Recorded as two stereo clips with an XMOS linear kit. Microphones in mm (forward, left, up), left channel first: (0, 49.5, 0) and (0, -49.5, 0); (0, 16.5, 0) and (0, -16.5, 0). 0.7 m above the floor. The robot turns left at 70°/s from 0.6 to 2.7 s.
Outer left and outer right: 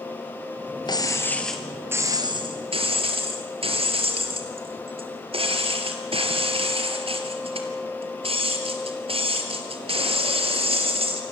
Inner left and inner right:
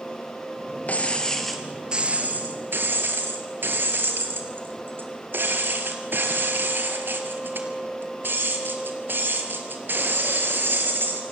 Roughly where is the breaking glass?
Ahead left.